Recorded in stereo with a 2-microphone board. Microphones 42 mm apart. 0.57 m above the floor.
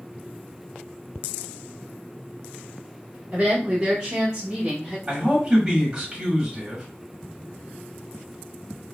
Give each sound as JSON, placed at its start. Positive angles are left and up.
{"t": 3.3, "sound": "a woman speaking", "side_deg": -20, "distance_m": 1.2}
{"t": 5.1, "sound": "a man speaking", "side_deg": -15, "distance_m": 1.2}